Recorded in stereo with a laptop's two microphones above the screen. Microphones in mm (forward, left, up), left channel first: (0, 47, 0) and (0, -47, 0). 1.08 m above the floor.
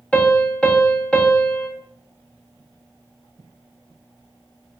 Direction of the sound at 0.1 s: 15° left (ahead or behind).